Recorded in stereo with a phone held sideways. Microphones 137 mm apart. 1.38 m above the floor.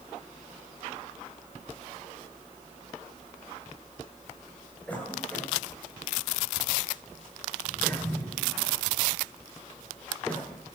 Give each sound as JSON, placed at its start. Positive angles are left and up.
{"t": 4.9, "sound": "a cough", "side_deg": 10, "distance_m": 8.5}